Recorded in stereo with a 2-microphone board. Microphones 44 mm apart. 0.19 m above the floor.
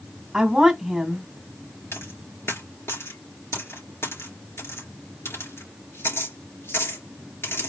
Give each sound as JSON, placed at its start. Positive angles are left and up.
{"t": 0.3, "sound": "a woman speaking", "side_deg": -15, "distance_m": 1.4}
{"t": 1.9, "sound": "a dropped coin", "side_deg": 70, "distance_m": 3.0}